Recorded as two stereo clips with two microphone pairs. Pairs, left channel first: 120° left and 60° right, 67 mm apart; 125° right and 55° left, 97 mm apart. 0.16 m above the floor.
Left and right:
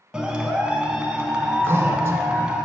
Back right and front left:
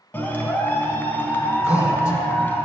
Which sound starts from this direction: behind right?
A clap, at 0.1 s.